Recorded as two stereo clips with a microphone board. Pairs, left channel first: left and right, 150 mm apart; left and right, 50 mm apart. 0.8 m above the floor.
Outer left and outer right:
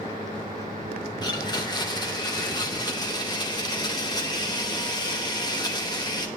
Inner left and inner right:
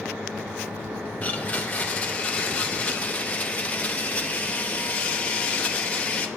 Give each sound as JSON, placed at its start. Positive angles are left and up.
{"t": 1.2, "sound": "a blender", "side_deg": 25, "distance_m": 0.8}